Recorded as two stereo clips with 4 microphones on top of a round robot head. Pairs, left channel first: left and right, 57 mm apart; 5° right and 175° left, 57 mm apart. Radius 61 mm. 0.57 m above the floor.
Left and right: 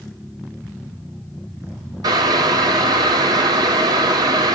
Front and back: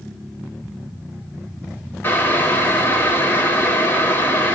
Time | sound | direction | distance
2.0 | boiling | 70° right | 0.7 m